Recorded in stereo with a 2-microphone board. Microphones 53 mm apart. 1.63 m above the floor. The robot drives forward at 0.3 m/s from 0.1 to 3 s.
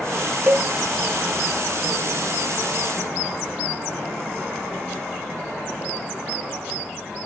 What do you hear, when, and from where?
0.5 s a cowbell: 30° right (ahead or behind), 0.6 m